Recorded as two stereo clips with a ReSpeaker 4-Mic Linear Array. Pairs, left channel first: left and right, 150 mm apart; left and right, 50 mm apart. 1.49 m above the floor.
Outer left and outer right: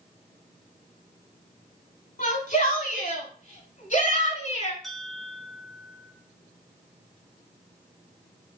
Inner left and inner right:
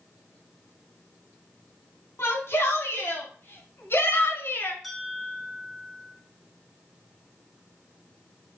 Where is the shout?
65° left (ahead or behind), 3.5 m; by 4.7 s 50° left (ahead or behind), 1.9 m.